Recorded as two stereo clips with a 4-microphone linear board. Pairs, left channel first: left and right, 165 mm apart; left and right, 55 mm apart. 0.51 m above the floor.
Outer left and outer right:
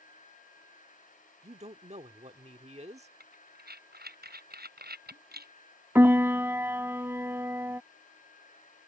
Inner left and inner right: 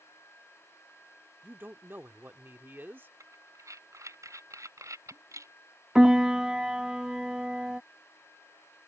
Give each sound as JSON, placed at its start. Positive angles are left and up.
{"t": 1.4, "sound": "a man speaking", "side_deg": -40}
{"t": 3.2, "sound": "breathing", "side_deg": -75}
{"t": 6.0, "sound": "a piano", "side_deg": -15}